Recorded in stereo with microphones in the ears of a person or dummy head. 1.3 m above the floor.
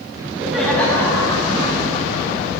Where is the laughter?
20° right (ahead or behind), 1.5 m; by 2.5 s 35° left (ahead or behind), 4 m.